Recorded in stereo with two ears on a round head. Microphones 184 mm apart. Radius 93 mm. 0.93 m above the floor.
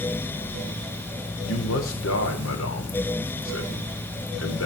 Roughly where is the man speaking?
Left.